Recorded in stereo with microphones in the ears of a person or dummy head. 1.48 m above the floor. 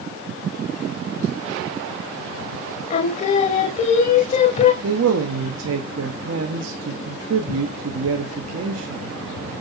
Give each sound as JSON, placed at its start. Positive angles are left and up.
{"t": 2.9, "sound": "singing", "side_deg": 40, "distance_m": 0.8}
{"t": 4.8, "sound": "a man speaking", "side_deg": -80, "distance_m": 0.8}